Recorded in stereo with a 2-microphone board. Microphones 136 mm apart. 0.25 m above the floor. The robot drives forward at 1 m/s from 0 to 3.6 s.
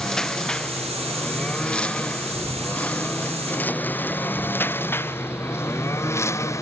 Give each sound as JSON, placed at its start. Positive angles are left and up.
{"t": 0.0, "sound": "a lawn mower", "side_deg": 5}